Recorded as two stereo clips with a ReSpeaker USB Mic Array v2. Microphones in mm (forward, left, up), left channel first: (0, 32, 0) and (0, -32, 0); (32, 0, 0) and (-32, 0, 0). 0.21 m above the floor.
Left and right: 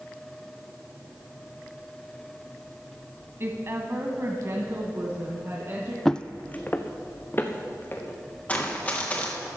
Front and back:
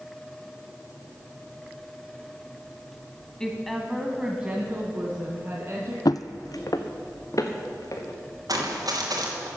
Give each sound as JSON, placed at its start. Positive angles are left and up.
{"t": 3.4, "sound": "a woman speaking", "azimuth_deg": -75, "distance_m": 1.2}
{"t": 6.0, "sound": "footsteps", "azimuth_deg": 5, "distance_m": 0.5}
{"t": 8.5, "sound": "running footsteps", "azimuth_deg": 155, "distance_m": 3.0}